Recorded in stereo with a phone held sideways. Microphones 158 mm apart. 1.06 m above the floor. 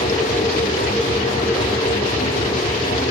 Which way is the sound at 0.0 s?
60° left (ahead or behind).